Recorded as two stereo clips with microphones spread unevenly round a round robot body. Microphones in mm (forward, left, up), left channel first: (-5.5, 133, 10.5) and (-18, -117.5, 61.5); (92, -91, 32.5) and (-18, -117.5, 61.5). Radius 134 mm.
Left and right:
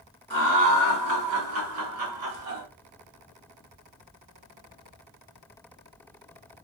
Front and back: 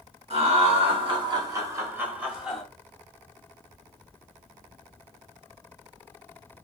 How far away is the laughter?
About 2 m.